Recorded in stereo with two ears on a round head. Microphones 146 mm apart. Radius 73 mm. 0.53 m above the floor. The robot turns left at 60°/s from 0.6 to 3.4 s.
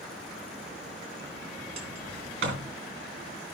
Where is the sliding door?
30° right (ahead or behind), 3 m; by 2.7 s 80° right, 3 m.